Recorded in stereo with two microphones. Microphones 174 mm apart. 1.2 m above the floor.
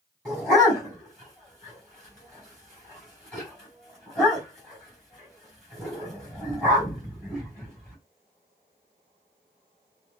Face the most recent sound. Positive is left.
turn(degrees=5)  # may be behind; listen again after turning